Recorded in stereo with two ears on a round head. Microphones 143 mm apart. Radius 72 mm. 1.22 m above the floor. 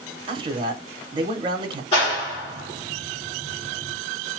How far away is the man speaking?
About 0.9 m.